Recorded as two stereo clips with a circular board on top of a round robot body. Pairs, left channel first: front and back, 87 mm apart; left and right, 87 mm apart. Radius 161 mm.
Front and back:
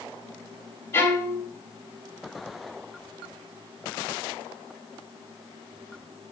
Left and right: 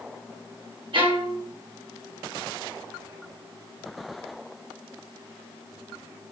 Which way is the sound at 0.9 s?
65° right.